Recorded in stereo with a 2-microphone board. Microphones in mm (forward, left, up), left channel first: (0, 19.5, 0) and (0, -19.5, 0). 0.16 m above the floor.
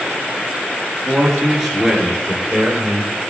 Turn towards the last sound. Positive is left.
turn(degrees=-10)  # may be behind; listen again after turning